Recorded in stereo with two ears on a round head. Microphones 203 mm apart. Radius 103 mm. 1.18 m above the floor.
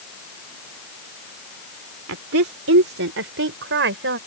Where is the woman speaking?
75° right (ahead or behind); by 4.2 s 55° right (ahead or behind).